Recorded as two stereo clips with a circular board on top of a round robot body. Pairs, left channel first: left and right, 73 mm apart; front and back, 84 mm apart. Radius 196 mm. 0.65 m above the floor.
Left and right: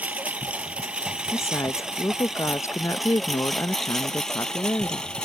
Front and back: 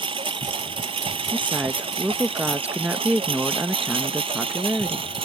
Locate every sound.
0.0 s a lawn mower: 165° right; by 5.3 s 170° left
1.3 s a woman speaking: 115° left